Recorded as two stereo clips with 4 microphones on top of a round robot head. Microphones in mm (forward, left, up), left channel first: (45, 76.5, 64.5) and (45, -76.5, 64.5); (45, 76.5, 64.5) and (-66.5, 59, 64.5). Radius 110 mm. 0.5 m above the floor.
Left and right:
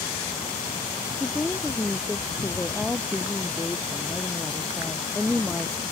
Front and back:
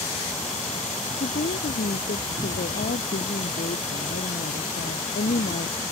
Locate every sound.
1.2 s a woman speaking: 5° left